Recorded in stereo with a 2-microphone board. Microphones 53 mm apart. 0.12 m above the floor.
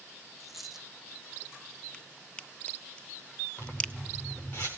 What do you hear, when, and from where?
0.4 s a dropped coin: 5° right (ahead or behind), 2.5 m
1.9 s a crack: 20° left (ahead or behind), 0.7 m
3.6 s a zipper: 35° left (ahead or behind), 5 m